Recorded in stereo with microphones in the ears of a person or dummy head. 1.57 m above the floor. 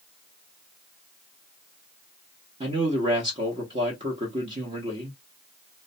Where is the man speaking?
30° right (ahead or behind), 0.9 m.